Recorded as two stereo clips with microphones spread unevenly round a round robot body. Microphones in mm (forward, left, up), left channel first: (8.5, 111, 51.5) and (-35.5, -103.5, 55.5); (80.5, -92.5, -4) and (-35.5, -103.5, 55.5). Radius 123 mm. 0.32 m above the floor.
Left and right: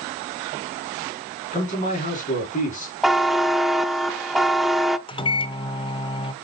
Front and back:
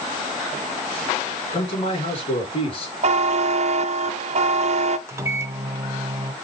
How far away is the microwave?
About 0.7 m.